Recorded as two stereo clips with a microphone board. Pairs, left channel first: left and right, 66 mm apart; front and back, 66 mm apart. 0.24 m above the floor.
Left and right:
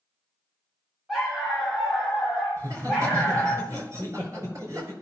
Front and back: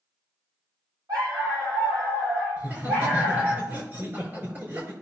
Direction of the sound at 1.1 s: Straight behind.